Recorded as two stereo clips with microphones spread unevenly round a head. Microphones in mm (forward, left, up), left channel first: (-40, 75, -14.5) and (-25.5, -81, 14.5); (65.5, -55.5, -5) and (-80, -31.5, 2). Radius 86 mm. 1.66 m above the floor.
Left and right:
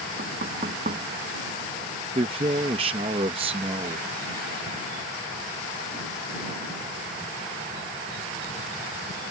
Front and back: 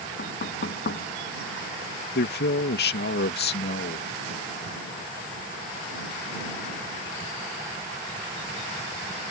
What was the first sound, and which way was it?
Knocking, 35° right.